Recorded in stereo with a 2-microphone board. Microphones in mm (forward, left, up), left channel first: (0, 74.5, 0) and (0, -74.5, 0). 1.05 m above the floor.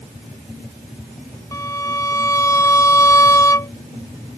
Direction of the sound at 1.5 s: 20° left (ahead or behind).